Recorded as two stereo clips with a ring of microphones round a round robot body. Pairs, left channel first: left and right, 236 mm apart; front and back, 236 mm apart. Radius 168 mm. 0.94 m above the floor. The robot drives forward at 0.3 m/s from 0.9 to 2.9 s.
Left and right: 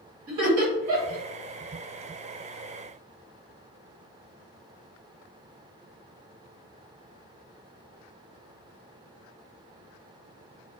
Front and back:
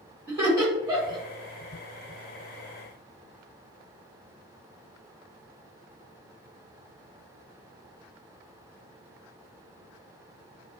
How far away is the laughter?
About 1.6 m.